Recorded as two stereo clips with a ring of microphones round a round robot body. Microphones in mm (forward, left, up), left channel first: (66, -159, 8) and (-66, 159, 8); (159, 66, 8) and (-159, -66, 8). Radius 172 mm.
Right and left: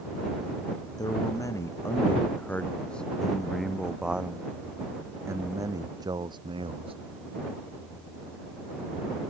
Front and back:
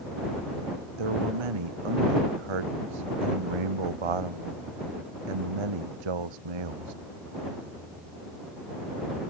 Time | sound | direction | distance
1.0 | a man speaking | 145° right | ?